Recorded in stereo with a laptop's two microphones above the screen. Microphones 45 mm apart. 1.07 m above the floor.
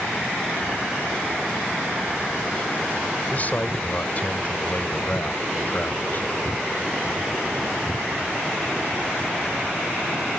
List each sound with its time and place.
3.3 s a man speaking: 35° left (ahead or behind); by 6.3 s 40° left (ahead or behind)